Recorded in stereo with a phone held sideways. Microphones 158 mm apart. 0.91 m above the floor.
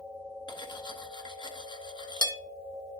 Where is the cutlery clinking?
30° left (ahead or behind), 0.8 m.